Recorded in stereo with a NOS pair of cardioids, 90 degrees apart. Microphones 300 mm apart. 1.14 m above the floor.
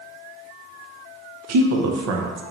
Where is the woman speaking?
60° right, 0.8 m.